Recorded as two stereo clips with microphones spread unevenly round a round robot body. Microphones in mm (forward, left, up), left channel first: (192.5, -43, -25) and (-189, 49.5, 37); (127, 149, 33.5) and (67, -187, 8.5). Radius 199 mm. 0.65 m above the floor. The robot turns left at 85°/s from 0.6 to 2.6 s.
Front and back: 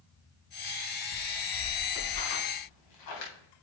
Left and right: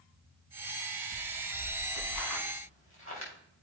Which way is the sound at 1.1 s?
145° left.